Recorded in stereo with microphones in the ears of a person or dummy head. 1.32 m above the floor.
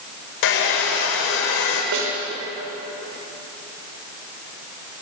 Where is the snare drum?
60° right (ahead or behind), 5.5 m.